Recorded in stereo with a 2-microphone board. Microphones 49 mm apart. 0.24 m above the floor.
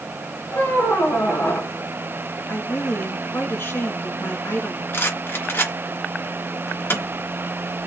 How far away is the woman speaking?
About 3.5 m.